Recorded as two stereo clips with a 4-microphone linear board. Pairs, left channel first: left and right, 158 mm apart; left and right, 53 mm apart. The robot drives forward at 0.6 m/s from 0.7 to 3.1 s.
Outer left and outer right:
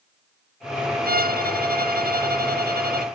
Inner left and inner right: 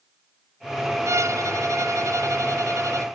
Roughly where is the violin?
Right.